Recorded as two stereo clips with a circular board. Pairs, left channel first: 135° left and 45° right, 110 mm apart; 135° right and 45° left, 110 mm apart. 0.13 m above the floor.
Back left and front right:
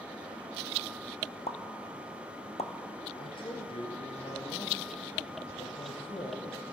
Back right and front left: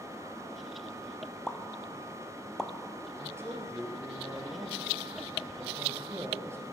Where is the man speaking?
105° left, 1.9 m.